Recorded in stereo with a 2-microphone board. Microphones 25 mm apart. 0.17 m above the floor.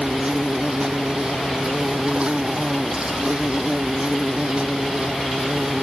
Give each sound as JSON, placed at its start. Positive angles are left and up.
{"t": 0.0, "sound": "an insect", "side_deg": -40}